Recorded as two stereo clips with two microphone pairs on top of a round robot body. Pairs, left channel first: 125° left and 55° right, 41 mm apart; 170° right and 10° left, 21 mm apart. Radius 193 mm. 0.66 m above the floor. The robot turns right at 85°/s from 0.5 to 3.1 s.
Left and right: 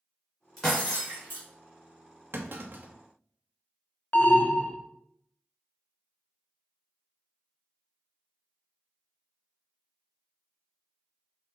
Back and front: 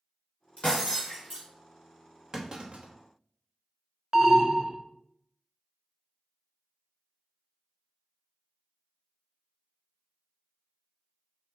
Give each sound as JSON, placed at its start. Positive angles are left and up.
{"t": 0.6, "sound": "breaking glass", "azimuth_deg": -140, "distance_m": 2.5}
{"t": 2.3, "sound": "a clunk", "azimuth_deg": -55, "distance_m": 0.9}
{"t": 4.1, "sound": "an alarm", "azimuth_deg": 80, "distance_m": 0.7}